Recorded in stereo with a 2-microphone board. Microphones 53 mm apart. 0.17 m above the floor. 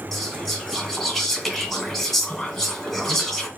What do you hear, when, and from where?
0.1 s whispering: centre (ahead or behind), 1.9 m